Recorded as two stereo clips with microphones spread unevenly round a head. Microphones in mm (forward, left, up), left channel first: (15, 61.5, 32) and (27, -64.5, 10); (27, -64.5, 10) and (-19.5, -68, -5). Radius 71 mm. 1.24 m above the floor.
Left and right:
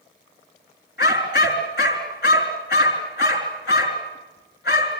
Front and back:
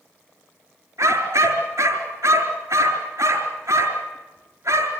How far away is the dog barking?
About 4 m.